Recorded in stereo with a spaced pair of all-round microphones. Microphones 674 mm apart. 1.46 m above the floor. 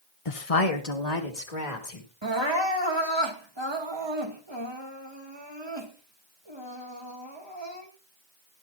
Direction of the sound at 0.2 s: 50° left (ahead or behind).